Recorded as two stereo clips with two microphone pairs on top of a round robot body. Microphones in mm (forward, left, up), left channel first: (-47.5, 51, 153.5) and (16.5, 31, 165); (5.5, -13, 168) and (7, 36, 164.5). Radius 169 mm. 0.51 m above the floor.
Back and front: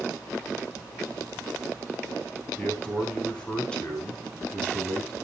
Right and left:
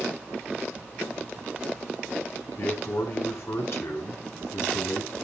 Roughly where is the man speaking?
Behind right.